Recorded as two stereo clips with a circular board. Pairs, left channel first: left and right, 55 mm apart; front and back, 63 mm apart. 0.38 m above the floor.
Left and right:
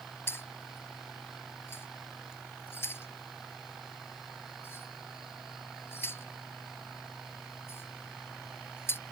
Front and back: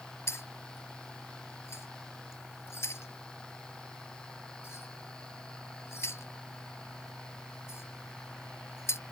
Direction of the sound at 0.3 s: 45° left.